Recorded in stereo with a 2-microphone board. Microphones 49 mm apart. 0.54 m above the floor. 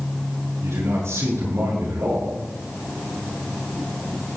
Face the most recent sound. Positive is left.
turn(degrees=-85)